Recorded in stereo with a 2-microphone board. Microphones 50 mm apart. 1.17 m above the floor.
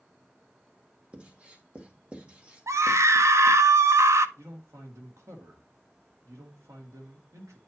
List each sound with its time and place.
1.1 s writing: 25° right (ahead or behind), 1.3 m
2.7 s a scream: 80° right, 0.5 m
4.4 s a man speaking: 85° right, 2 m